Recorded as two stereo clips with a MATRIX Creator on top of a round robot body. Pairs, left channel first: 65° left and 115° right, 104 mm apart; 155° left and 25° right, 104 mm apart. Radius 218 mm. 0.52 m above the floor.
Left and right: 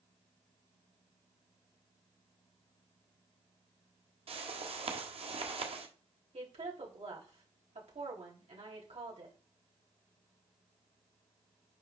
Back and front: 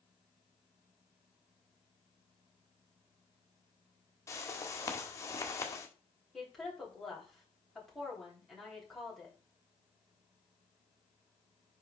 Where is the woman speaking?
115° right, 4 m.